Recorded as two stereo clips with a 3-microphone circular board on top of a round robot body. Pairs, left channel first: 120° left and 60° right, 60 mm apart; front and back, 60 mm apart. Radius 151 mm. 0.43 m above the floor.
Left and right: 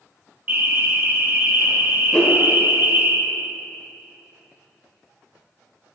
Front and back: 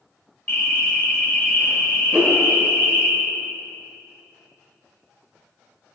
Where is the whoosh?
165° left, 1.4 m.